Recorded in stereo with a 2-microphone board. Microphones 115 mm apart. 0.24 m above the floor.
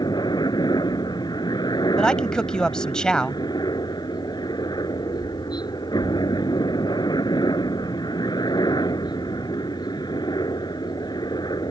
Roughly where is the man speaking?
Centre.